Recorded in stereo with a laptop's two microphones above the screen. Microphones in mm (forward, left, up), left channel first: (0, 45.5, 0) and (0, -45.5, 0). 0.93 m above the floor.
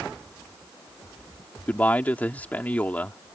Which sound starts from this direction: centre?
A man speaking, at 1.7 s.